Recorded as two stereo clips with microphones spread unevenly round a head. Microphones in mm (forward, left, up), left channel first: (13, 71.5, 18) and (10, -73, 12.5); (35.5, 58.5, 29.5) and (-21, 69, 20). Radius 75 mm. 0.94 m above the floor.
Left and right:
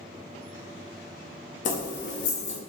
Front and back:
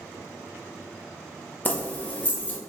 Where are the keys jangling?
50° left, 0.7 m.